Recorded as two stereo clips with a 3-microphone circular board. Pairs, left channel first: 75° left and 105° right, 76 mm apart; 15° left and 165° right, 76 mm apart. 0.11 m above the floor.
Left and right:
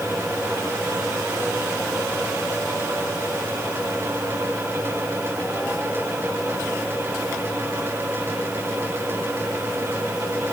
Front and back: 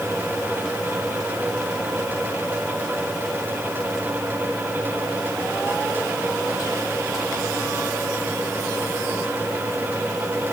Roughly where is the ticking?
No ticking in this recording.